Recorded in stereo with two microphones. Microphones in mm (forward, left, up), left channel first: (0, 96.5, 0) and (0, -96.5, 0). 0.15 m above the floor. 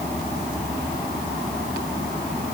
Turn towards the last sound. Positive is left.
No sound to turn to.